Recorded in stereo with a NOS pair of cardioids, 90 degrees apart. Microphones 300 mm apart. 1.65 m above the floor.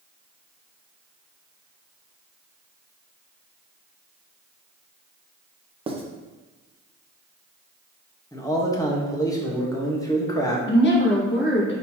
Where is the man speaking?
10° left, 1.1 m.